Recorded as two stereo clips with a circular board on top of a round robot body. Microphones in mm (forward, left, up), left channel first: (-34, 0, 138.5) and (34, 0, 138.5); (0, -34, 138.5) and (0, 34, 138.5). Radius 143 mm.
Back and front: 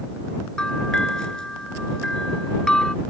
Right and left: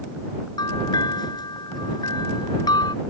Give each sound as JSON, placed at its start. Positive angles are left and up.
{"t": 0.6, "sound": "a bell", "azimuth_deg": -100}